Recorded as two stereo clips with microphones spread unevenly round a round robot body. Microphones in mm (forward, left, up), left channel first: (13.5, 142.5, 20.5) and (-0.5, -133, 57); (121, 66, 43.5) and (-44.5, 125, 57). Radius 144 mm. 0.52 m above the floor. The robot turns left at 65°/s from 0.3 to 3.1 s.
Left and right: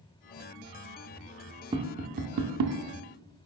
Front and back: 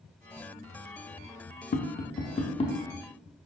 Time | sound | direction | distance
1.7 | tapping | 15° right | 0.7 m